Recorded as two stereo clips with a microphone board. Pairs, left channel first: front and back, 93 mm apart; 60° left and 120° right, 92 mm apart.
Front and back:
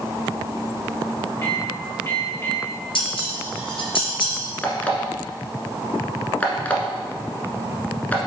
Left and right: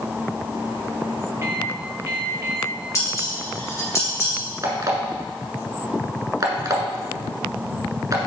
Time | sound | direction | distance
1.4 | a microwave | 60° right | 3 m
3.0 | dishes clattering | 5° left | 3 m
4.6 | an alarm clock | 75° right | 1.3 m